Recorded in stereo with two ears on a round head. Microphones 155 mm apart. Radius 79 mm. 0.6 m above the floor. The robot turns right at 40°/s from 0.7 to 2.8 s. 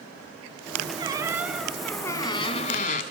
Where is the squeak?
25° right, 1.3 m; by 3.0 s 45° left, 1.3 m.